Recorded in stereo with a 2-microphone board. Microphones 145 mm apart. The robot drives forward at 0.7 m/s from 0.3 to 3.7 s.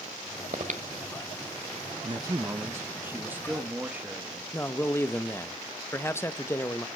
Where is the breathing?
55° right (ahead or behind), 1.4 m; by 1.3 s 60° right (ahead or behind), 1.3 m.